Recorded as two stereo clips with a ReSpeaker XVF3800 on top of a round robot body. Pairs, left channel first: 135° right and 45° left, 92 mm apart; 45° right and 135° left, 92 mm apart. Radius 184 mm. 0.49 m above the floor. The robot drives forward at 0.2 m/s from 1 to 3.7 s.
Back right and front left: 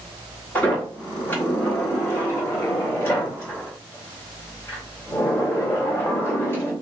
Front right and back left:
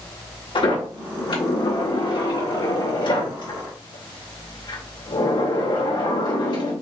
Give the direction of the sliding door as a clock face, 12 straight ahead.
2 o'clock.